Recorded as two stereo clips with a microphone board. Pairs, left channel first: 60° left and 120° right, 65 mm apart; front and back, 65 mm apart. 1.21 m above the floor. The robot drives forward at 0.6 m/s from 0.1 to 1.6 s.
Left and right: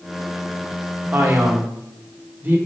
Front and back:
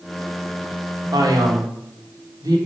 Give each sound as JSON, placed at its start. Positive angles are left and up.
{"t": 1.1, "sound": "a man speaking", "azimuth_deg": 180, "distance_m": 1.3}